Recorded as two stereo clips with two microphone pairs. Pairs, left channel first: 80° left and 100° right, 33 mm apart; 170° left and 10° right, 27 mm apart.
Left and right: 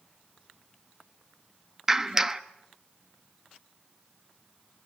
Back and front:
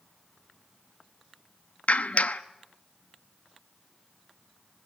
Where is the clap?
170° right, 0.9 m.